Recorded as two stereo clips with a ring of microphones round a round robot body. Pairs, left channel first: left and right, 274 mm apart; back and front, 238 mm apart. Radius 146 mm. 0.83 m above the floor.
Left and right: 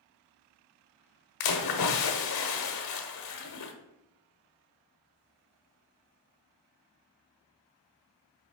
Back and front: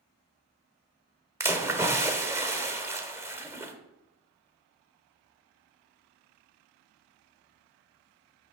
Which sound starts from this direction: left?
A splash, at 1.4 s.